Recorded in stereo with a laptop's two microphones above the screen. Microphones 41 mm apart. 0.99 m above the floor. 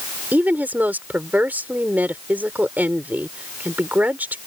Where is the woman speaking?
45° right (ahead or behind).